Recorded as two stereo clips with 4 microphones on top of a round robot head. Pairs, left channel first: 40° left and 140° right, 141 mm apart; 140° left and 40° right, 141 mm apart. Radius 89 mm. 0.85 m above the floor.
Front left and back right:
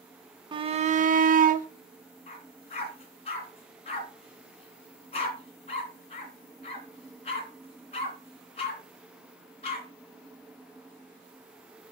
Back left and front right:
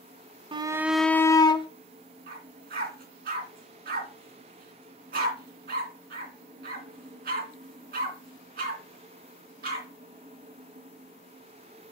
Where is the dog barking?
10° right, 3 m.